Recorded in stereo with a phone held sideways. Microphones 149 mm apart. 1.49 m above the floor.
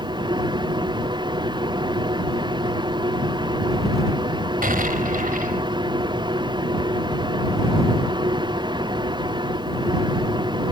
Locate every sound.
0.0 s a machine running: 30° right (ahead or behind)
4.6 s an explosion: 70° right (ahead or behind)